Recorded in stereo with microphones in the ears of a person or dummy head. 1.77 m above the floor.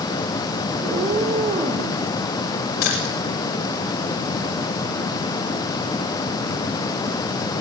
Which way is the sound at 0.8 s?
20° right (ahead or behind).